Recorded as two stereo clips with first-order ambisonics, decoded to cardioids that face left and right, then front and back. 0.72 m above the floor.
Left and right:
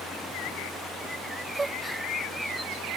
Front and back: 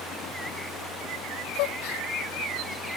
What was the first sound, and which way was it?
A gasp, 10° right.